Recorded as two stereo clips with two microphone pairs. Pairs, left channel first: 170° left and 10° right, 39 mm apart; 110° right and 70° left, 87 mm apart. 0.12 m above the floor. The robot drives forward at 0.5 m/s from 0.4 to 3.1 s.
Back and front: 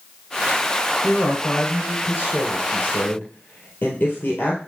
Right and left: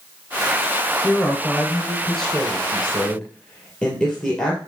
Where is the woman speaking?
160° left, 1.6 m; by 4.6 s 170° left, 2.5 m.